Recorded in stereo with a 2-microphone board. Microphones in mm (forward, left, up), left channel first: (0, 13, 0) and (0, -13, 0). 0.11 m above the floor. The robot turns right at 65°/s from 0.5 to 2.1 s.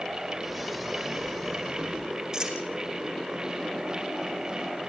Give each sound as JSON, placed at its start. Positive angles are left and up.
{"t": 2.3, "sound": "a dropped coin", "side_deg": -30, "distance_m": 3.5}